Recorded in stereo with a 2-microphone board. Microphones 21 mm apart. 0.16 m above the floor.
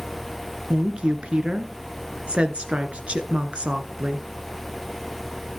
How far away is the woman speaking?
About 1.8 m.